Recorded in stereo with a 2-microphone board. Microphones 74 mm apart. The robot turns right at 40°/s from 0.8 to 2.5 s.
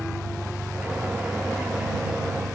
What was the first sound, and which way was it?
An engine running, 20° right.